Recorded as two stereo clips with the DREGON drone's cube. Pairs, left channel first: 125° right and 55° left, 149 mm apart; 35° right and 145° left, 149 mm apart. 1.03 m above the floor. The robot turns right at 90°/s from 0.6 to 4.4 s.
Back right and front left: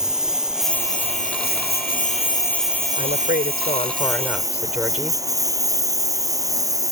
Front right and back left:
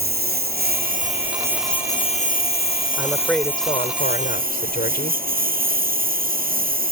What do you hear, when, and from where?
0.0 s a lawn mower: 140° left; by 6.9 s 125° left
3.0 s a woman speaking: 155° right; by 5.2 s 25° right